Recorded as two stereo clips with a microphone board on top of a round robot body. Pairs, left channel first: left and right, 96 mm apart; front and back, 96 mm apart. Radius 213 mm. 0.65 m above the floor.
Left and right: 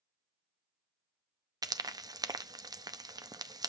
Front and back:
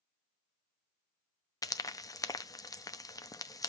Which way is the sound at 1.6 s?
45° right.